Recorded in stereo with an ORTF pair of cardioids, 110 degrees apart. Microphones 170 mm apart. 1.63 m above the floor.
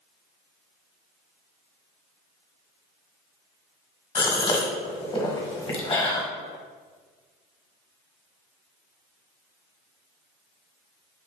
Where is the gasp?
30° left, 1.3 m.